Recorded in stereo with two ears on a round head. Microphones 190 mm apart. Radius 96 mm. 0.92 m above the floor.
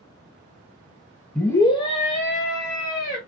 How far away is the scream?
About 0.8 m.